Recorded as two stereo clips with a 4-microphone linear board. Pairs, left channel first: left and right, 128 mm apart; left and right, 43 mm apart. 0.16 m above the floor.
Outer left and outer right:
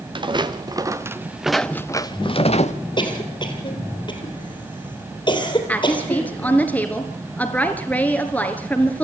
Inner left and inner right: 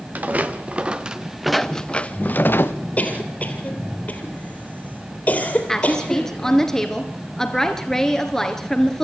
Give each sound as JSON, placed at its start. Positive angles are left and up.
{"t": 0.1, "sound": "footsteps", "side_deg": -40, "distance_m": 1.9}
{"t": 3.0, "sound": "a cough", "side_deg": 40, "distance_m": 3.5}
{"t": 5.7, "sound": "a woman speaking", "side_deg": 10, "distance_m": 2.5}